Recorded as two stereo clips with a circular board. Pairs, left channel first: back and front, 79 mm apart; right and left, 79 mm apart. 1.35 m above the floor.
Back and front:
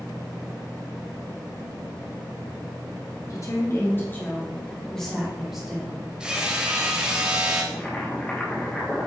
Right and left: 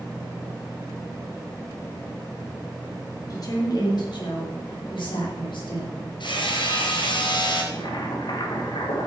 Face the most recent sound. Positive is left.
turn(degrees=-105)